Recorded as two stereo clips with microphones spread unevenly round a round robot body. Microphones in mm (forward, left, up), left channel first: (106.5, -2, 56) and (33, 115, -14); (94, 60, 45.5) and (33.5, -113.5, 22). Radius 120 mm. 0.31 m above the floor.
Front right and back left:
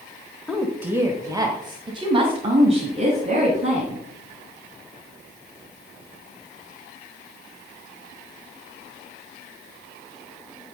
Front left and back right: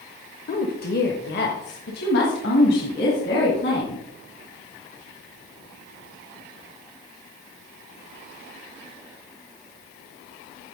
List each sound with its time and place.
0.5 s a woman speaking: 70° left, 1.1 m; by 4.0 s 115° left, 3 m